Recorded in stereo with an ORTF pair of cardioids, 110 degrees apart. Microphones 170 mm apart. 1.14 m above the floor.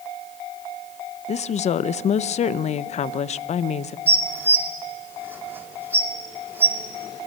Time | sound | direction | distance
1.3 | a woman speaking | 40° left | 0.6 m
4.1 | dishes clattering | 10° right | 2 m